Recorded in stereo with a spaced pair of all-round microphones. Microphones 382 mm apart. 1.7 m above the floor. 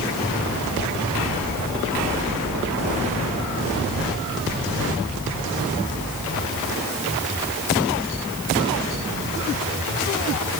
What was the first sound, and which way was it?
Only background noise.